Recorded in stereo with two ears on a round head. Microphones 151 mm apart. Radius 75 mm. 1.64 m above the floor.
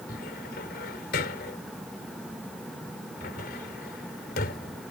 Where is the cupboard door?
60° left (ahead or behind).